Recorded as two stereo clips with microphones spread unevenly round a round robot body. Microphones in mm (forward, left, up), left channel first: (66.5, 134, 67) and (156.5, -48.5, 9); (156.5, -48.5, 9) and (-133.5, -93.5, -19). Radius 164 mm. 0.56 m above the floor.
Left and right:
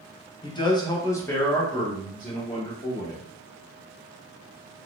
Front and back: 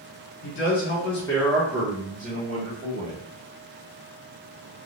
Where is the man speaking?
35° left, 1.0 m; by 3.2 s 130° right, 1.6 m.